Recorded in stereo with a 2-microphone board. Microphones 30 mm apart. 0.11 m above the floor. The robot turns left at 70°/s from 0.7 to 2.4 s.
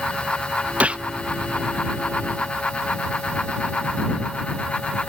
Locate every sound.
0.8 s a gunshot: 55° right (ahead or behind); by 1.0 s 40° right (ahead or behind)